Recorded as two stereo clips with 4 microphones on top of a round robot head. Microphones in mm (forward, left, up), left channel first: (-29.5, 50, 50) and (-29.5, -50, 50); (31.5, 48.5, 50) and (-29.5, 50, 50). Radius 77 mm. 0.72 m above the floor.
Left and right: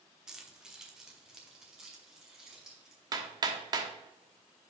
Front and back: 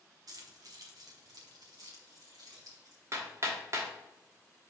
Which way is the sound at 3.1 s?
135° right.